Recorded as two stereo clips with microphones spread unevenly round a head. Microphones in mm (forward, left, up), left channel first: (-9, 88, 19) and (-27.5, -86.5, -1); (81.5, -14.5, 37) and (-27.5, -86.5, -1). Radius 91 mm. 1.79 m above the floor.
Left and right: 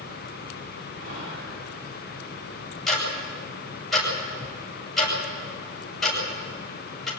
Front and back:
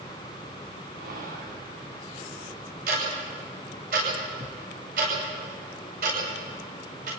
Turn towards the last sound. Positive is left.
turn(degrees=170)